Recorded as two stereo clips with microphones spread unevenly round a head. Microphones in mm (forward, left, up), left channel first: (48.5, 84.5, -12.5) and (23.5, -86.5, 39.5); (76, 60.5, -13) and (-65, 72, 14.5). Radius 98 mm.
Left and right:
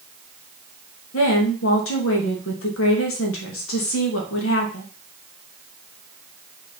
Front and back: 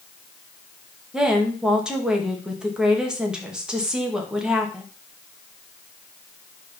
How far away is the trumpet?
I don't hear a trumpet.